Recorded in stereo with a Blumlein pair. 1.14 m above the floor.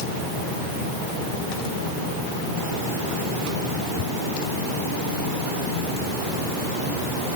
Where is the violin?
No violin in this recording.